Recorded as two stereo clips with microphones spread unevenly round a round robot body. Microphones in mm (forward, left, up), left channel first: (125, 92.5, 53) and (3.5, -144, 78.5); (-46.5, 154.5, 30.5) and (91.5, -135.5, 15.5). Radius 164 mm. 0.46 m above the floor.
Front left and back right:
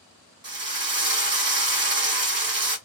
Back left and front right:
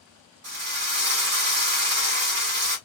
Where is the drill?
95° right, 1.2 m.